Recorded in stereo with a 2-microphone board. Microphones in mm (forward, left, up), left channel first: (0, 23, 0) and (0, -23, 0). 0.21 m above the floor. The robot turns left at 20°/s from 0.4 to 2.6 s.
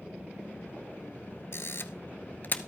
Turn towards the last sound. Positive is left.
turn(degrees=40)  # may be behind; listen again after turning